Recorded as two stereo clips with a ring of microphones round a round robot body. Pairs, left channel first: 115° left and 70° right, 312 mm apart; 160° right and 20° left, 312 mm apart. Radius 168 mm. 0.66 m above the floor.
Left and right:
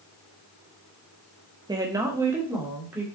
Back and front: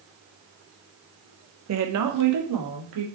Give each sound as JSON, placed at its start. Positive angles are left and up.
{"t": 1.7, "sound": "a woman speaking", "azimuth_deg": 5, "distance_m": 1.3}